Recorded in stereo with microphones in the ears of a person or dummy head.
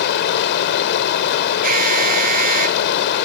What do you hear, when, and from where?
0.0 s running water: 65° left (ahead or behind)
1.6 s an alarm: 50° right (ahead or behind)